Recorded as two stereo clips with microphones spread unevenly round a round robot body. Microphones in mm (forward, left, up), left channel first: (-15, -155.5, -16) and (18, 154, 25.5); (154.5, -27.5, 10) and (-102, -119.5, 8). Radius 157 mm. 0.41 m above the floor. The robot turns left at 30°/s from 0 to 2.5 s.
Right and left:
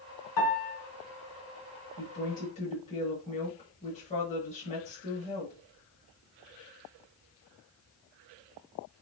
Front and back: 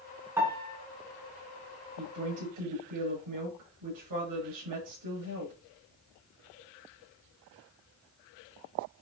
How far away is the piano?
About 4.5 m.